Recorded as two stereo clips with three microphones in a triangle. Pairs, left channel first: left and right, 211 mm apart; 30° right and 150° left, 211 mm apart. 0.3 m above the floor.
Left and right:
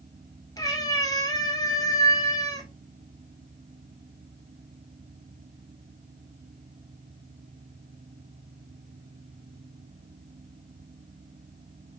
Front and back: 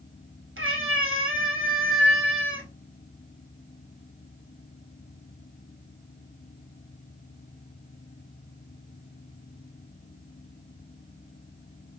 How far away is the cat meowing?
About 1.1 m.